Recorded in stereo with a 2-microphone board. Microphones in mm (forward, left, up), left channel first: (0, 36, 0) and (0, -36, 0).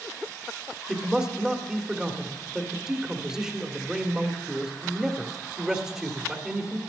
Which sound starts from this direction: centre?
A man speaking, at 0.9 s.